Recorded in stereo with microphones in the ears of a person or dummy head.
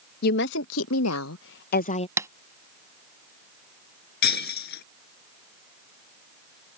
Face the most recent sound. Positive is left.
turn(degrees=60)  # may be behind; listen again after turning